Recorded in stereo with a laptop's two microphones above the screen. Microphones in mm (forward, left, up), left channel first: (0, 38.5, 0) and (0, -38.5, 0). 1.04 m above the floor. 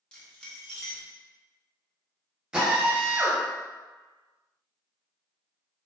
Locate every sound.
0.1 s keys jangling: 15° left (ahead or behind), 0.8 m
2.5 s a drill: 10° right (ahead or behind), 0.7 m